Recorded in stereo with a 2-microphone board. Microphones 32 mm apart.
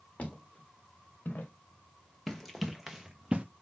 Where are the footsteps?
45° left (ahead or behind), 3.5 m; by 1.5 s 70° left (ahead or behind), 2 m.